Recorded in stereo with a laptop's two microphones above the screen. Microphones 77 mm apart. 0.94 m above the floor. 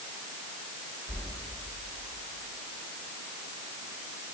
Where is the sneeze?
No sneeze in this recording.